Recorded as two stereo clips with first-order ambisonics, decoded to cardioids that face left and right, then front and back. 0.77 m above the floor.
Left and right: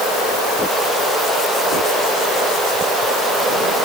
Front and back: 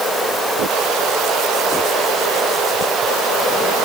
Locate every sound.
Only background noise.